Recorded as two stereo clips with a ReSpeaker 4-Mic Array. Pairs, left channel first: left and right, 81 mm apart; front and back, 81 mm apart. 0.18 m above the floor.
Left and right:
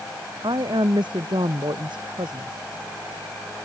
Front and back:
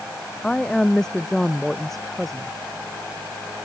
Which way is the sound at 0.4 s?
80° right.